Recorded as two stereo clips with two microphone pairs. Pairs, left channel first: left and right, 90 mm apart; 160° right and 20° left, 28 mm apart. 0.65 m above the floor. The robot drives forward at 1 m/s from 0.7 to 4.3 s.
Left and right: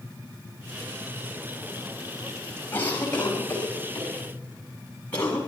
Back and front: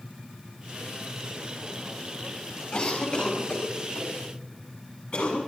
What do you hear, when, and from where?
2.7 s a cough: 155° left, 4.5 m; by 5.4 s 160° left, 6 m